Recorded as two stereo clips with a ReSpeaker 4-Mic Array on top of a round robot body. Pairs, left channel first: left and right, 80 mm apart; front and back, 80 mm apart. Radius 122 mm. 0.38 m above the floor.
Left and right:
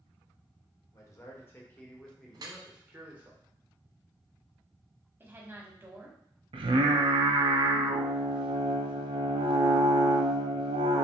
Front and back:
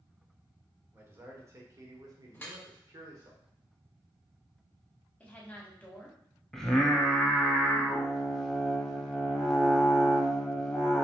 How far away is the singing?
About 0.5 m.